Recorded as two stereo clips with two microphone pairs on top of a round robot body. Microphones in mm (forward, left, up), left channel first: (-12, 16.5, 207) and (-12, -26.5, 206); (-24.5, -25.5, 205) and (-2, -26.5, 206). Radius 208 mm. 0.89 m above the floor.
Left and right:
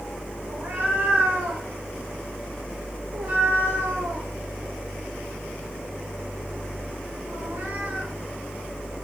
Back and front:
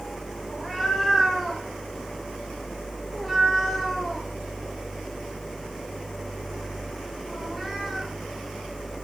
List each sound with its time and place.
0.5 s a cat meowing: 85° right, 2.5 m